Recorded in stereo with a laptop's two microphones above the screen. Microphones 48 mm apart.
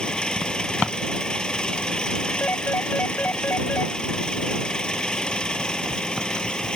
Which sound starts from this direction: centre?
An engine running, at 0.0 s.